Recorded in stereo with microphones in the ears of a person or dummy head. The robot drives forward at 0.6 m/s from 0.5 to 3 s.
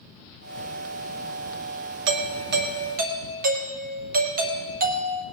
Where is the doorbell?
70° right (ahead or behind), 0.8 m; by 5.2 s 40° right (ahead or behind), 1.1 m.